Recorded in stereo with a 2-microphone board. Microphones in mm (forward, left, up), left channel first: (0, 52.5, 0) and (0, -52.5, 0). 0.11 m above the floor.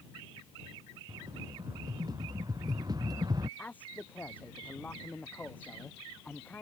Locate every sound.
1.1 s a rattle: 35° right (ahead or behind)
3.6 s a man speaking: 15° left (ahead or behind)